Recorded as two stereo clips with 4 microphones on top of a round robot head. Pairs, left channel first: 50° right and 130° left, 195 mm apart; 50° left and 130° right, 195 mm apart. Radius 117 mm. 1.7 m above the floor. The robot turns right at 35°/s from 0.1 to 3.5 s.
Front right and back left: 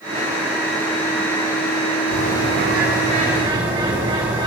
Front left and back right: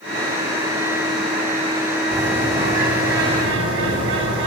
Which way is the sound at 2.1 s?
155° left.